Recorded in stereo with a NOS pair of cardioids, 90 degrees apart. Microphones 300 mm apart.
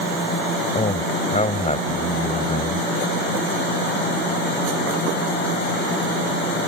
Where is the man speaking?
20° left.